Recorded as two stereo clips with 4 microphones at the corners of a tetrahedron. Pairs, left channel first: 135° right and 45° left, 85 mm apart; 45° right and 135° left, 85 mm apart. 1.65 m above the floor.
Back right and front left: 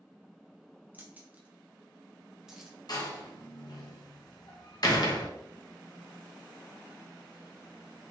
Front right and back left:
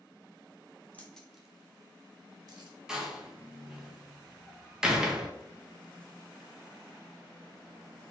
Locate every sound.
0.9 s keys jangling: 10° left, 0.7 m; by 2.8 s 130° left, 1.1 m
2.9 s a door slam: 145° right, 0.8 m